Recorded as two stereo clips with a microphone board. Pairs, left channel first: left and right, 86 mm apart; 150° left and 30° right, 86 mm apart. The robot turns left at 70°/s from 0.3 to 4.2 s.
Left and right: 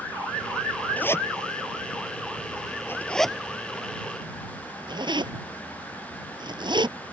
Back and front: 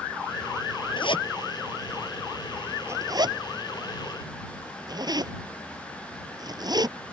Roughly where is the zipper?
Behind.